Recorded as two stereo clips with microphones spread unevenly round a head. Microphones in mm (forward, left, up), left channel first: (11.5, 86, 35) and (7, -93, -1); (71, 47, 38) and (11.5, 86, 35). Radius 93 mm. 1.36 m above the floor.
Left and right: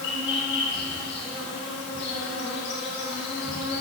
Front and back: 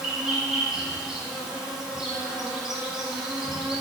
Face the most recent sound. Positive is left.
turn(degrees=65)